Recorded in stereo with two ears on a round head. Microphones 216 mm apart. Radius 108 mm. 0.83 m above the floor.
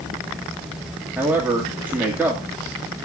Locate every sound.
1.2 s a man speaking: 10° right (ahead or behind), 1.8 m